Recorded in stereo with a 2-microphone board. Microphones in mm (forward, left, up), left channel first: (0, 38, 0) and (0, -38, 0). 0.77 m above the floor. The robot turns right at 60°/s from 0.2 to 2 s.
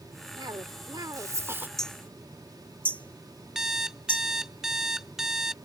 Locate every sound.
0.4 s a cough: 105° right; by 1.7 s 25° right
1.8 s hammering: 5° left (ahead or behind); by 4.2 s 20° left (ahead or behind)
3.5 s an alarm clock: 5° right (ahead or behind)